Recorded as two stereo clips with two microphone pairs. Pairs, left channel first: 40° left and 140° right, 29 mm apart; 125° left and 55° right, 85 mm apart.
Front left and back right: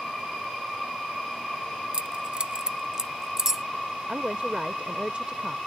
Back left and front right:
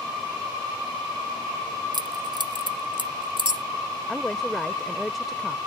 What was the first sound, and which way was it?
Keys jangling, 85° right.